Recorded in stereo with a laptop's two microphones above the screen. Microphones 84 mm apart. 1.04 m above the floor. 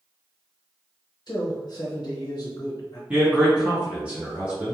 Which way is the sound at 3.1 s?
15° right (ahead or behind).